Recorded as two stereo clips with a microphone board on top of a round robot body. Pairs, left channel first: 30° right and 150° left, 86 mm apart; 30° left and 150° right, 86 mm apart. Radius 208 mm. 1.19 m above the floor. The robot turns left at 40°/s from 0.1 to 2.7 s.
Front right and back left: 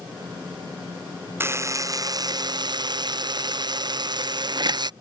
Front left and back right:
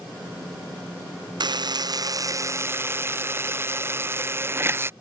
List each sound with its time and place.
1.4 s a buzzer: 155° right; by 4.9 s 155° left